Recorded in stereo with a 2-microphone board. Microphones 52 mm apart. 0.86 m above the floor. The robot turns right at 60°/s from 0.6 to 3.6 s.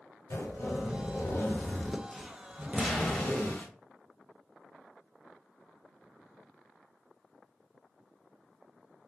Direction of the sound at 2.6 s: 15° right.